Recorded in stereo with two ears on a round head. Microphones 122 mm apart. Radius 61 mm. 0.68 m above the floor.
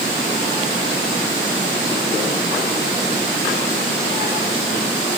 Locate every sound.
Only background noise.